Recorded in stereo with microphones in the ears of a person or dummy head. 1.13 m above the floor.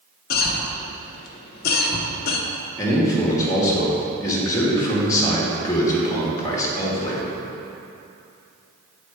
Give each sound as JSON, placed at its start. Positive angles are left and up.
{"t": 0.3, "sound": "a cough", "side_deg": 45, "distance_m": 0.9}
{"t": 2.8, "sound": "a man speaking", "side_deg": 15, "distance_m": 1.6}